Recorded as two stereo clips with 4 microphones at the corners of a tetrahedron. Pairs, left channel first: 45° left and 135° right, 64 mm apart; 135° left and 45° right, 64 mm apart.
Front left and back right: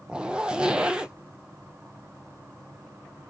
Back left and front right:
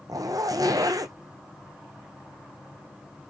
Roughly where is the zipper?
Ahead right.